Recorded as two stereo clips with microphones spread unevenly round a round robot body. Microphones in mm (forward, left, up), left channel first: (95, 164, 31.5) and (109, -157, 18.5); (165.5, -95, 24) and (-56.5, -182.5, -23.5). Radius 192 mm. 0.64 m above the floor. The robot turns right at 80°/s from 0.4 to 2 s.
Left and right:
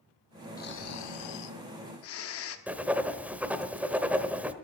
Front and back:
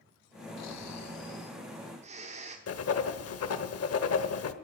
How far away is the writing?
About 1.2 m.